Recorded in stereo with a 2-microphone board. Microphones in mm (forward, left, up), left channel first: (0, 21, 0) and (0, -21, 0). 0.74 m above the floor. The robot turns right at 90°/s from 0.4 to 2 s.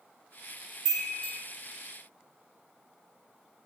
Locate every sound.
0.8 s a chime: 5° right (ahead or behind), 1.9 m; by 1.3 s 35° left (ahead or behind), 1.9 m